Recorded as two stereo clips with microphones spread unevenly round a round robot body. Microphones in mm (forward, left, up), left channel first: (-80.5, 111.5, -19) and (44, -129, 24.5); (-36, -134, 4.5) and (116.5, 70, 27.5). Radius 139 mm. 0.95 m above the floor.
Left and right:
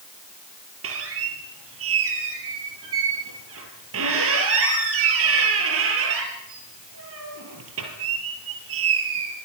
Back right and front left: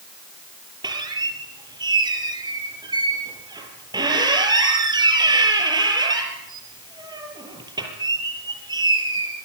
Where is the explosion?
No explosion in this recording.